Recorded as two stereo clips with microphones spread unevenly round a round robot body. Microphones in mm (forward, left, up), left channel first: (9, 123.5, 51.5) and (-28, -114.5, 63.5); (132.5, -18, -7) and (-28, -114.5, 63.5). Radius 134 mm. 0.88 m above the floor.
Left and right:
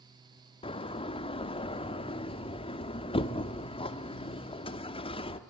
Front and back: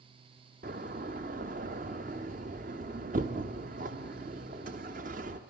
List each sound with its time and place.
0.6 s a door slam: 150° left, 1.0 m